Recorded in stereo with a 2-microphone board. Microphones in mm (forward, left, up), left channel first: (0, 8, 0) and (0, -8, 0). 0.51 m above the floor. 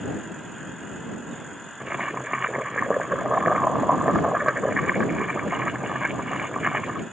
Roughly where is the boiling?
Right.